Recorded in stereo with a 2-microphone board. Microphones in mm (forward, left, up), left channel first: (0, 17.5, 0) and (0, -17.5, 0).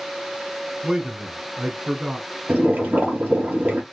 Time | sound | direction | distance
0.8 | a man speaking | 20° right (ahead or behind) | 1.1 m
2.5 | boiling | 55° right (ahead or behind) | 3 m